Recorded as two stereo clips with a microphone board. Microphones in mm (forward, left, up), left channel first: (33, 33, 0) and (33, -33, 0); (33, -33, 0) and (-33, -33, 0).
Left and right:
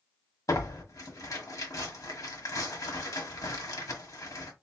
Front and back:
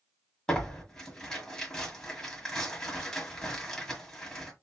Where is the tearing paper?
80° left, 1.4 m.